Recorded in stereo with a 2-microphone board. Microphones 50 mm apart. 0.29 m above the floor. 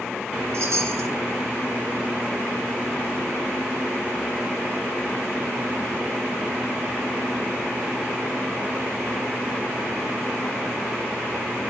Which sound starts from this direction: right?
A chime, at 0.5 s.